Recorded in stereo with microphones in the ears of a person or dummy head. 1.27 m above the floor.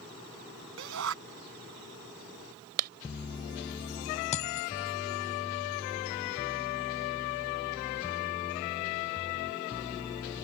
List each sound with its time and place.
0.8 s a shout: 75° right (ahead or behind)
2.8 s a clap: 55° right (ahead or behind)
4.3 s a dropped coin: 40° left (ahead or behind)